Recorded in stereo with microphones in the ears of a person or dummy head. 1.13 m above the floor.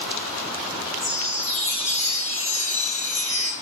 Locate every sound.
1.0 s a chime: 75° left (ahead or behind), 0.9 m